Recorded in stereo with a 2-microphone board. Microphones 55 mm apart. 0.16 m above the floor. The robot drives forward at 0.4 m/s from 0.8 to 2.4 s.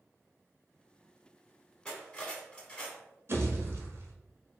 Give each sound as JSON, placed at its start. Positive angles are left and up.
{"t": 1.9, "sound": "cutlery clinking", "side_deg": 20, "distance_m": 0.7}
{"t": 3.3, "sound": "a pop", "side_deg": -50, "distance_m": 0.7}